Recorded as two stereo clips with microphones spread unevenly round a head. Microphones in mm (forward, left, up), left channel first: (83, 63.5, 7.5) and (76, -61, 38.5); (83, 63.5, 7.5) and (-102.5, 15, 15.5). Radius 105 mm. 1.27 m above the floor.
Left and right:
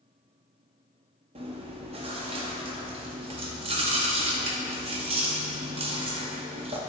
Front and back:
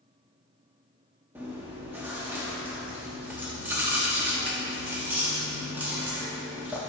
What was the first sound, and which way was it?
Chewing, 85° right.